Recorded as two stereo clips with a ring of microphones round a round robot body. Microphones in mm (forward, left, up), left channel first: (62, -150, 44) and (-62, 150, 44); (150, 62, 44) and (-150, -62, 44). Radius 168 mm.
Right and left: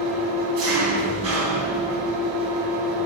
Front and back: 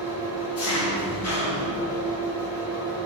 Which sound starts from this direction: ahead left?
An engine running, at 0.0 s.